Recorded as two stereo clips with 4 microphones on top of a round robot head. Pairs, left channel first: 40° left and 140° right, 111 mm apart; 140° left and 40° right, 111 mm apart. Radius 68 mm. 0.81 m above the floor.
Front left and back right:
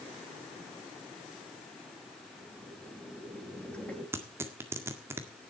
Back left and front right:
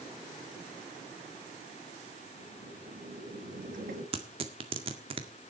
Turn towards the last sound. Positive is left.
turn(degrees=-75)